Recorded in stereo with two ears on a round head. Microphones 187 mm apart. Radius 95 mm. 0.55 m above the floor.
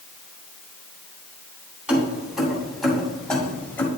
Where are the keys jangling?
5° right (ahead or behind), 2.5 m; by 3.9 s 10° left (ahead or behind), 1.5 m.